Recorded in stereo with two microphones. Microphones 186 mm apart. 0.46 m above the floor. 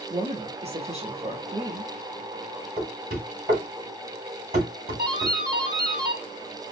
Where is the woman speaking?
35° right (ahead or behind), 0.9 m.